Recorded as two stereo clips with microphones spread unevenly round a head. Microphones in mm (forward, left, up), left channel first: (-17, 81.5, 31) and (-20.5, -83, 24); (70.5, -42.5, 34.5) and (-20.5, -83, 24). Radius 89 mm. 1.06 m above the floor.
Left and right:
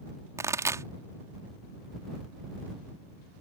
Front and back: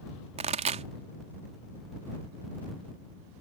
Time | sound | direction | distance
0.4 | a pop | 165° right | ?